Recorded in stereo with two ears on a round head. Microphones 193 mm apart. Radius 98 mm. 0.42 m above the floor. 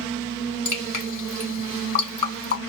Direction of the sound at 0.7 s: 35° left (ahead or behind).